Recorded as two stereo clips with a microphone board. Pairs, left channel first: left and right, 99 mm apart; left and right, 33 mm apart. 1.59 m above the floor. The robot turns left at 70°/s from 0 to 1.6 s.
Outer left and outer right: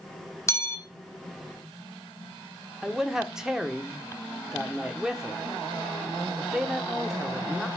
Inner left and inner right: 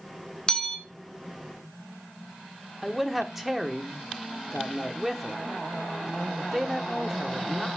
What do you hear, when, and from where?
0.5 s a bell: 30° left (ahead or behind), 1.3 m
2.8 s a man speaking: 5° right (ahead or behind), 1.2 m